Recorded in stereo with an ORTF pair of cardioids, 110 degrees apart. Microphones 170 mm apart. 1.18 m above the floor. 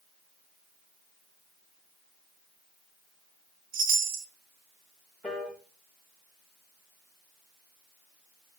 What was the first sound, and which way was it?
A chime, 55° right.